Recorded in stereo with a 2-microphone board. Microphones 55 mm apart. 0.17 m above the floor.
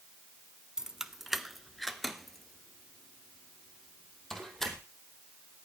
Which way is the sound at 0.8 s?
10° right (ahead or behind).